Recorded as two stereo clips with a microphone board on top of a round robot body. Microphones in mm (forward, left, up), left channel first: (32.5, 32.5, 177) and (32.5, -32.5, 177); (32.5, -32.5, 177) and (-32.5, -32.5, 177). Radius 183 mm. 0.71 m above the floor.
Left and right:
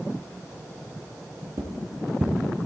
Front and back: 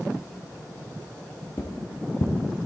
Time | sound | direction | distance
1.6 | footsteps | 50° right | 1.5 m